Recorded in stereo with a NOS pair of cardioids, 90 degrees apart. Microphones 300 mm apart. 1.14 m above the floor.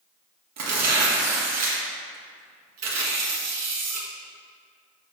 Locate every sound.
0.6 s tearing paper: 60° right, 1.8 m